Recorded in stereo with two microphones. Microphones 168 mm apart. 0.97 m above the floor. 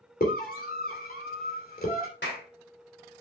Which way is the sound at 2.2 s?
80° left.